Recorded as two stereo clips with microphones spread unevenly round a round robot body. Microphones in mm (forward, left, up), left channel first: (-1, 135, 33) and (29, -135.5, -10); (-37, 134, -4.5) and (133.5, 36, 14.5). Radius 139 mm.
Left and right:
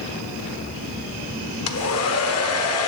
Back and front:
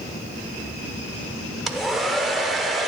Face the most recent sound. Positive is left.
turn(degrees=60)